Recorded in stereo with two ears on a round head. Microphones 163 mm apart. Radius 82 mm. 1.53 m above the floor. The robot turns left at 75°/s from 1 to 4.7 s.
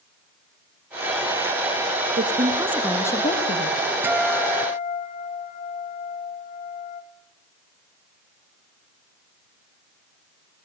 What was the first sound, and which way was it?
A woman speaking, 130° right.